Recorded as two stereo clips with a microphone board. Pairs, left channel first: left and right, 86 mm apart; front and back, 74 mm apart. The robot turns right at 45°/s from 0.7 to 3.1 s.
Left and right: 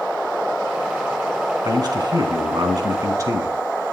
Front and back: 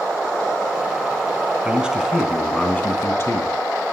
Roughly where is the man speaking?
Behind right.